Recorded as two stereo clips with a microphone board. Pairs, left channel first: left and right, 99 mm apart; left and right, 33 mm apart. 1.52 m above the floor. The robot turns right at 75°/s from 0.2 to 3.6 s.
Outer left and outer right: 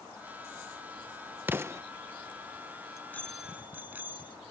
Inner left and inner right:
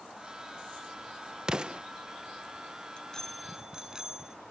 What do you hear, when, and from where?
1.5 s an explosion: 20° right (ahead or behind); by 1.8 s 30° right (ahead or behind)
2.9 s a bicycle bell: 145° left; by 4.4 s 160° right